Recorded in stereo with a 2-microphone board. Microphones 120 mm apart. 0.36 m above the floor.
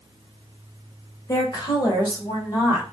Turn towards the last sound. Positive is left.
turn(degrees=30)  # may be behind; listen again after turning